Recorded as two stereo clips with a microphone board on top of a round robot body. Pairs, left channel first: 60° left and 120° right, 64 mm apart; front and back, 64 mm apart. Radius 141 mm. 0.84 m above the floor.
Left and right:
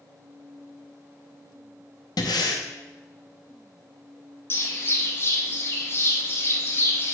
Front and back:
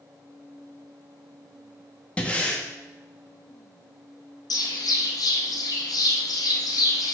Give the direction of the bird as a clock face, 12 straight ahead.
12 o'clock.